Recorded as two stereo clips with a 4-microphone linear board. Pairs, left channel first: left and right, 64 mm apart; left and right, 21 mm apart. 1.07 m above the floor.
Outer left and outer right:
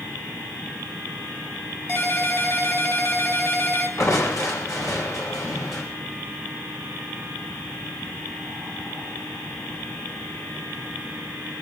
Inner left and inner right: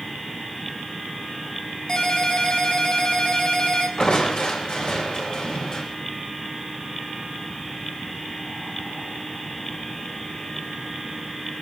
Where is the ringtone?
40° left (ahead or behind), 4 m.